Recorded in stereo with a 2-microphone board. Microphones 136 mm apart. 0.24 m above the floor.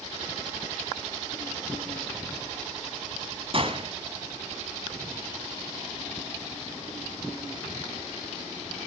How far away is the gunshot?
About 2 m.